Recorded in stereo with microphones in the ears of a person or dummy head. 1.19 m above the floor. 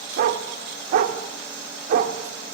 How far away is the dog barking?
About 1.4 m.